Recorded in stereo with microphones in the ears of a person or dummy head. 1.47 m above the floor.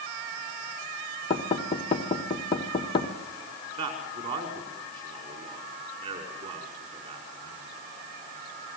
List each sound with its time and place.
1.3 s knocking: 35° left (ahead or behind), 1.7 m
3.8 s a man speaking: 45° right (ahead or behind), 5 m